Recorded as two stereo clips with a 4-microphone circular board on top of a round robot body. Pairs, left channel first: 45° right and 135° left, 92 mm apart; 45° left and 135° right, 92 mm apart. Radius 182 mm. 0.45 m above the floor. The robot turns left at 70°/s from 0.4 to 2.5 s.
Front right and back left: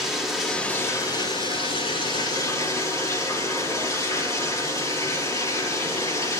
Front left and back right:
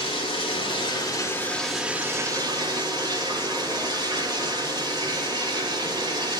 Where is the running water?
45° left, 5 m; by 6.4 s 100° right, 5 m.